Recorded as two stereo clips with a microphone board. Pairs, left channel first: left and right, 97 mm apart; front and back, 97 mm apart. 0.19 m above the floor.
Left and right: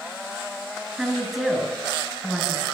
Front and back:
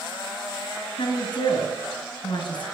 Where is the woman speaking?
Straight ahead, 2 m.